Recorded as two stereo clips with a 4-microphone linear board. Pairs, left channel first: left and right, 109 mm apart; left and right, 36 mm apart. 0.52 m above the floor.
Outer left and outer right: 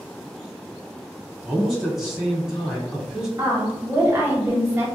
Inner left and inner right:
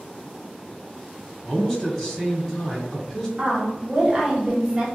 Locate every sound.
1.4 s a man speaking: 5° right (ahead or behind), 1.7 m
3.4 s a woman speaking: 20° right (ahead or behind), 0.9 m